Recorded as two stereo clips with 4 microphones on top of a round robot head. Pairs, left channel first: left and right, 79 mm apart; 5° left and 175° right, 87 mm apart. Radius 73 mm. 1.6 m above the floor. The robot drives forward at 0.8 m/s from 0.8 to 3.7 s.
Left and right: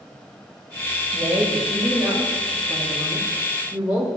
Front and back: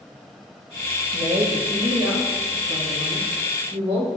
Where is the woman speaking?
145° right, 1.2 m; by 4.1 s 170° right, 3 m.